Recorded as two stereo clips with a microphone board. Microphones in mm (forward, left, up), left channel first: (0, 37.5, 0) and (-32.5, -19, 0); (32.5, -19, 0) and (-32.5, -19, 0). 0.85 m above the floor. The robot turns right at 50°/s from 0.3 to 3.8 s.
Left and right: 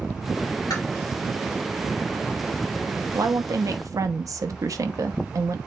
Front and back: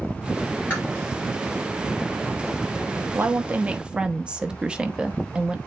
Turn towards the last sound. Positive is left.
turn(degrees=-105)